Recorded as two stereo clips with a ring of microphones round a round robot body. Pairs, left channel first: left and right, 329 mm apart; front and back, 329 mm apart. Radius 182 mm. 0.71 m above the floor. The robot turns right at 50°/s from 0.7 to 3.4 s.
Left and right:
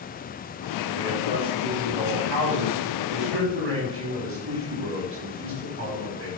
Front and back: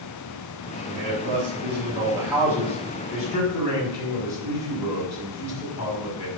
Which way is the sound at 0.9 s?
165° right.